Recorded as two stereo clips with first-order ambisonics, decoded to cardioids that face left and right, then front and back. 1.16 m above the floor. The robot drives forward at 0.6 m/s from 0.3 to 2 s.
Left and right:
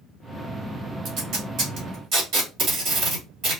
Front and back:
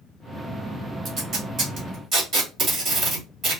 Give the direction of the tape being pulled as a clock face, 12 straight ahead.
4 o'clock.